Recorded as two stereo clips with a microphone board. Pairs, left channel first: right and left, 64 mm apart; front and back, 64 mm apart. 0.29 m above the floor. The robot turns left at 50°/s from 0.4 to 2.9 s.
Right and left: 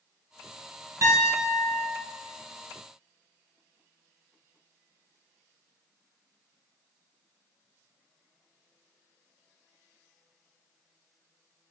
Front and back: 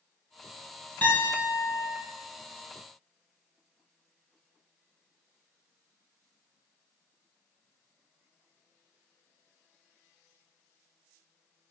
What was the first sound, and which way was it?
A piano, 55° left.